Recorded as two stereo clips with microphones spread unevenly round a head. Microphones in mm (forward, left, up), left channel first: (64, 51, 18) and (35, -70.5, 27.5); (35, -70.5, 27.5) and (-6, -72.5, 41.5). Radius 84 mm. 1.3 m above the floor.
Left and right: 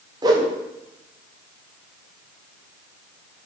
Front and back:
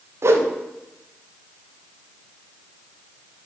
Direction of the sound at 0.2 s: 160° right.